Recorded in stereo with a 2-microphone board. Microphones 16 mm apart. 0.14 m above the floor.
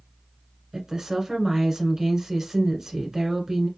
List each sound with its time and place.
0.7 s a woman speaking: 35° right (ahead or behind), 1.4 m